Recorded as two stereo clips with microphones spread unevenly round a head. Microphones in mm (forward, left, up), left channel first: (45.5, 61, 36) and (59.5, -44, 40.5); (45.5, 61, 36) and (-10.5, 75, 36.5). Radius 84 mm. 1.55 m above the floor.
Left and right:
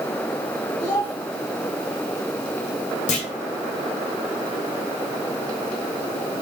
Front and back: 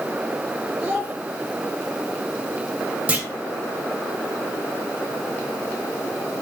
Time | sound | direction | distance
0.8 | a child speaking | 95° left | 3.5 m
3.1 | a clunk | 100° left | 2 m